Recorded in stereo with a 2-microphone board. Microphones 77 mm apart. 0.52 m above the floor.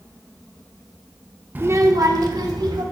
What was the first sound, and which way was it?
A child speaking, 25° right (ahead or behind).